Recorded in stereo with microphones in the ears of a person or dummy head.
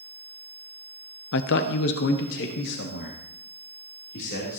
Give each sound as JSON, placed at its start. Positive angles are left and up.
{"t": 1.3, "sound": "a man speaking", "side_deg": 60, "distance_m": 0.6}